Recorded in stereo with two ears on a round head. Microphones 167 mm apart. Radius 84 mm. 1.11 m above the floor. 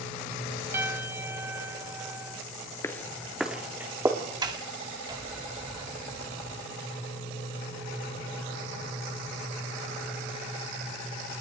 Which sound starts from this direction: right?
A sliding door, at 4.4 s.